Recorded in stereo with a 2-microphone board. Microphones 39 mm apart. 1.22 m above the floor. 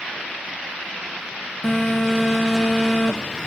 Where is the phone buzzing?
15° left (ahead or behind), 0.7 m.